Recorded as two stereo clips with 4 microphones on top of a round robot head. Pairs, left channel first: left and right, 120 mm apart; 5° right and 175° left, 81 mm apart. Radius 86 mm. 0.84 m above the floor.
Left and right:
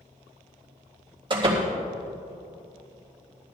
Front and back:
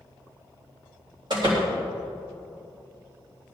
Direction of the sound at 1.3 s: 135° right.